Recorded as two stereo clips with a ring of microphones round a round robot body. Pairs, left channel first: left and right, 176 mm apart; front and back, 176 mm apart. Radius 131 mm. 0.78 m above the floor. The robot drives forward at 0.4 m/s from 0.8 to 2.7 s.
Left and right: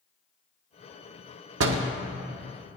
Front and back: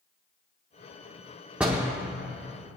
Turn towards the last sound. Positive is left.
turn(degrees=-120)